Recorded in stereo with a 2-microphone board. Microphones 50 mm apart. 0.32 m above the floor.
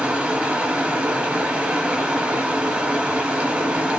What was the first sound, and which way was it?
Running water, 30° right (ahead or behind).